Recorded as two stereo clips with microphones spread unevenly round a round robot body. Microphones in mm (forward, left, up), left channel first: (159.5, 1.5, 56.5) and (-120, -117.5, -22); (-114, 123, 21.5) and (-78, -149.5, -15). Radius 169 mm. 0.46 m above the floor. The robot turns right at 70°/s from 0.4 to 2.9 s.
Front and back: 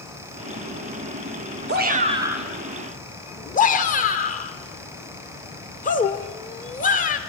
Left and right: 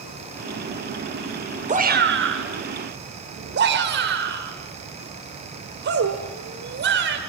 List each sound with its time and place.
1.7 s a shout: 135° right, 1.6 m; by 7.2 s 50° right, 1.6 m